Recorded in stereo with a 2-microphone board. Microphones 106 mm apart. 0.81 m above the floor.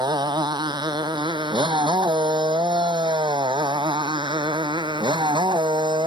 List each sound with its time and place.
0.0 s a motorcycle: 40° right (ahead or behind); by 6.1 s 45° right (ahead or behind)